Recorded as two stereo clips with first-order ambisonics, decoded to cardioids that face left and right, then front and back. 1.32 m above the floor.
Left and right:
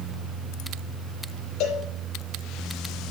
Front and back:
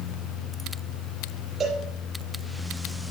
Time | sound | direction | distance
1.6 | a cowbell | 115° left | 5 m